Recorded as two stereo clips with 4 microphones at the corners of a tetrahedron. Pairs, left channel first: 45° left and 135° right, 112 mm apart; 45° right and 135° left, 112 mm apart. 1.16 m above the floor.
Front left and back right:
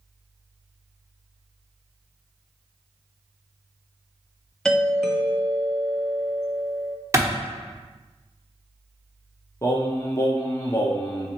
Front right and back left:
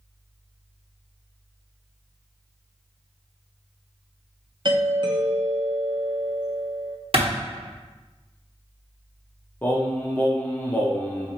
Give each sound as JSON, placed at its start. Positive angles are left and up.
{"t": 4.7, "sound": "a doorbell", "azimuth_deg": 130, "distance_m": 0.5}
{"t": 7.1, "sound": "a clap", "azimuth_deg": 160, "distance_m": 0.9}
{"t": 9.6, "sound": "singing", "azimuth_deg": 10, "distance_m": 0.6}